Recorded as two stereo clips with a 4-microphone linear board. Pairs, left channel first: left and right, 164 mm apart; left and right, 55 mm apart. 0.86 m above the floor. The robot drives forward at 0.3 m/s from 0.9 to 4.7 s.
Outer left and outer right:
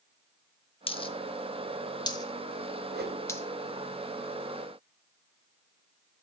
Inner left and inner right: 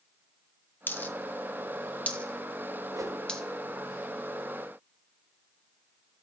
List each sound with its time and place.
0.9 s a dropped coin: 35° left (ahead or behind), 0.5 m; by 3.4 s 15° left (ahead or behind), 0.9 m
2.9 s a whoosh: 80° right, 0.6 m; by 3.2 s 90° right, 0.6 m